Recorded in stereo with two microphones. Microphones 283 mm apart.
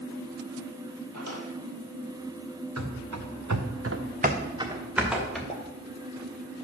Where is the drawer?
75° right (ahead or behind), 2 m.